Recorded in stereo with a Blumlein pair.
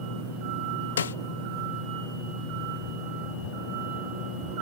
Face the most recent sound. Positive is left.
turn(degrees=65)